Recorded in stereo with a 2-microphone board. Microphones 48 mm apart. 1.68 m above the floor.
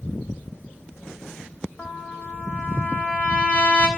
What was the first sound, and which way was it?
A trumpet, 25° left (ahead or behind).